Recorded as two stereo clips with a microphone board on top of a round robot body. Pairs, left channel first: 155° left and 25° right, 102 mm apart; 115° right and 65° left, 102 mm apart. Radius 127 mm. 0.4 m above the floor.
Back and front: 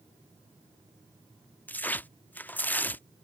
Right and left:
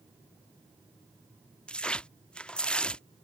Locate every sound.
1.7 s tearing paper: 175° right